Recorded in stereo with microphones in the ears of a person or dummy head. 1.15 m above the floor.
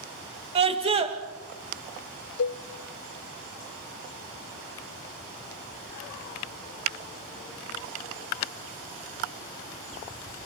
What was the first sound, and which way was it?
A scream, 30° right (ahead or behind).